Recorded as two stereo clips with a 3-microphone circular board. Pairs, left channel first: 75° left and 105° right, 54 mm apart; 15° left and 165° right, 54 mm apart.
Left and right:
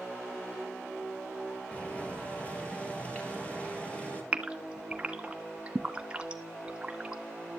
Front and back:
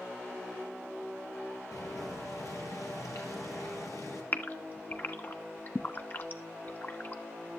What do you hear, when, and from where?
1.7 s boiling: 10° left, 3.5 m
4.3 s a gasp: 35° right, 1.1 m